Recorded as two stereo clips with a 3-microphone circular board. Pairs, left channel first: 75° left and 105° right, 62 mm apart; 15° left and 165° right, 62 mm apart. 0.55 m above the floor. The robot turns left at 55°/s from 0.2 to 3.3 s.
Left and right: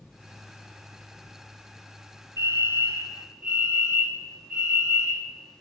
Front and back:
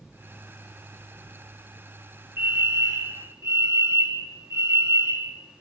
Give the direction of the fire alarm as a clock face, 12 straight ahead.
4 o'clock.